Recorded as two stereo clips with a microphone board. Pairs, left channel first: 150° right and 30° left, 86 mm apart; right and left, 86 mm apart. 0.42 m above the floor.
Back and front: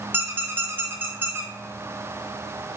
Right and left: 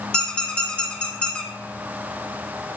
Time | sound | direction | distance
0.1 | a squeak | 20° right | 0.5 m